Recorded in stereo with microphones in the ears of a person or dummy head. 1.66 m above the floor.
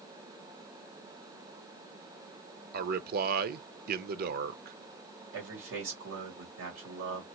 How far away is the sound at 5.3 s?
About 1.9 m.